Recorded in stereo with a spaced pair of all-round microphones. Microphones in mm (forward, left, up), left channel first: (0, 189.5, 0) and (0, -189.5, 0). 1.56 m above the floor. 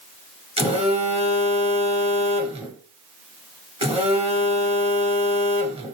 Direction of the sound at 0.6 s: 15° right (ahead or behind).